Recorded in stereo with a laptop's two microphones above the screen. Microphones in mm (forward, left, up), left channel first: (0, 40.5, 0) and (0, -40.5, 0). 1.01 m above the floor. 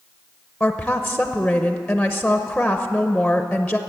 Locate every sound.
0.6 s a woman speaking: 5° left (ahead or behind), 0.7 m